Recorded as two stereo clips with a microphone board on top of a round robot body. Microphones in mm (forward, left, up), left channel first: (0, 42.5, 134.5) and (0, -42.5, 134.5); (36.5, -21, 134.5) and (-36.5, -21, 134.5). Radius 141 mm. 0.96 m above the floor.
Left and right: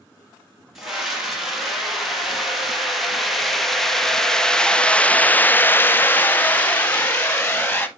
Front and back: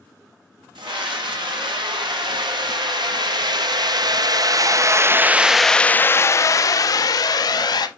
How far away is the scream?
About 2.5 m.